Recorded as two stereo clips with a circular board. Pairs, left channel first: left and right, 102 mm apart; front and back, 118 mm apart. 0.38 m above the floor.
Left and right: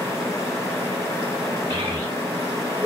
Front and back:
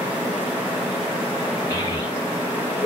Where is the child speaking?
50° right, 0.7 m; by 2.9 s 25° left, 0.6 m.